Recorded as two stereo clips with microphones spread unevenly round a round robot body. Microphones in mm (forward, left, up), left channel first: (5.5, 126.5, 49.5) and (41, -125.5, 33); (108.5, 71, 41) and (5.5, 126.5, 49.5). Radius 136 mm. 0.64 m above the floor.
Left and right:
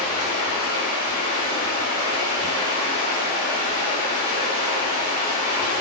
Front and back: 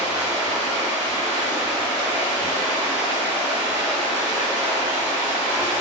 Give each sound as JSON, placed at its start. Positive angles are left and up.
{"t": 0.0, "sound": "running water", "azimuth_deg": -50, "distance_m": 1.6}